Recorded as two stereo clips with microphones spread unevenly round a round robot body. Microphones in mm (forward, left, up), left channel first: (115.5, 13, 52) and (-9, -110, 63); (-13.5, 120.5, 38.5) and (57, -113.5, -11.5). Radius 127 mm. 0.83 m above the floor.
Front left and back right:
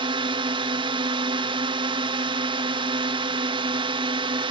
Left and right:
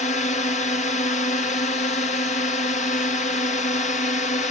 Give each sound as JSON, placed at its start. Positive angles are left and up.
{"t": 0.0, "sound": "a drone", "azimuth_deg": 175}